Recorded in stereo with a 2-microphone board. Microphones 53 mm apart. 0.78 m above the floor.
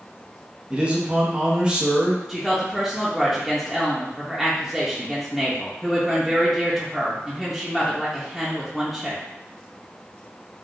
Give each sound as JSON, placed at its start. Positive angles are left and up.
{"t": 0.7, "sound": "a man speaking", "side_deg": -20, "distance_m": 0.6}
{"t": 2.3, "sound": "a woman speaking", "side_deg": 0, "distance_m": 0.6}